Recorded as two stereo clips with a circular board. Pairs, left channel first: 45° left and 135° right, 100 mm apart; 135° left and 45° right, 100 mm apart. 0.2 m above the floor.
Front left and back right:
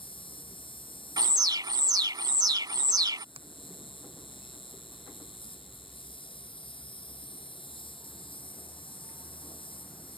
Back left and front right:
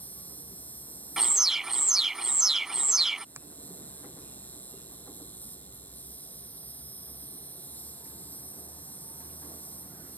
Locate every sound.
0.0 s an insect: 65° left
1.2 s an alarm: 130° right
3.4 s a finger snap: 110° right